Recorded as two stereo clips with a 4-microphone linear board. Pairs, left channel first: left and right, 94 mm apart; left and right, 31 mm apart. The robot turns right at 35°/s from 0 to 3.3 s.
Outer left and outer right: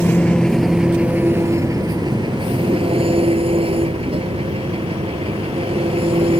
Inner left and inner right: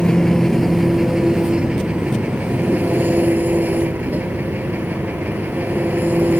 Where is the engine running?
160° left; by 6.4 s 85° right.